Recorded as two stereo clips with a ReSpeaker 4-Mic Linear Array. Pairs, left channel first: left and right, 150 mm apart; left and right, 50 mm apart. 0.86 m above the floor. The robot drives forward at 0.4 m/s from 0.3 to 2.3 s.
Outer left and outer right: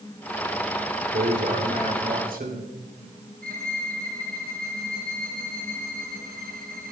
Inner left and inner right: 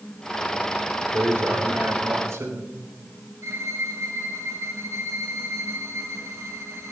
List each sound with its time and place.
1.1 s a man speaking: 65° right (ahead or behind), 3 m; by 2.7 s 75° right (ahead or behind), 3 m
3.4 s a violin: 75° right (ahead or behind), 2.5 m